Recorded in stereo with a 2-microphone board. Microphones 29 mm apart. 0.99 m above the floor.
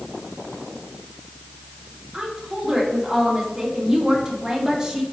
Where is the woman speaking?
20° right (ahead or behind), 2.0 m.